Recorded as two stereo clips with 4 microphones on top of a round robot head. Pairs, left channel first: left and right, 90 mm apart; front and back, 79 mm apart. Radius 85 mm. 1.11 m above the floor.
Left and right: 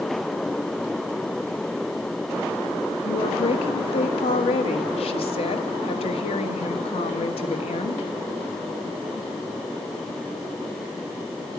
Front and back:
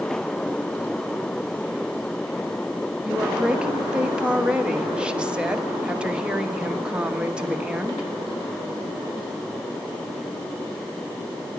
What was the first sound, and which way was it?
A woman speaking, 105° left.